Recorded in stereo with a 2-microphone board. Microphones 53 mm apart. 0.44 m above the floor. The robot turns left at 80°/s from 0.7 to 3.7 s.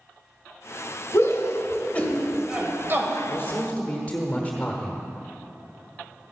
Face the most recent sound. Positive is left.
turn(degrees=35)